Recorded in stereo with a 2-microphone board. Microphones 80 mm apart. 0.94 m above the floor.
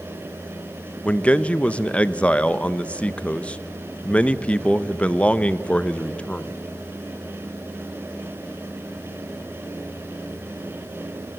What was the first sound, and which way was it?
A man speaking, 15° left (ahead or behind).